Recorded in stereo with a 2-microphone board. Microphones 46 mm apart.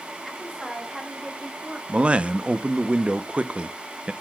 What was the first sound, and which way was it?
A woman speaking, centre (ahead or behind).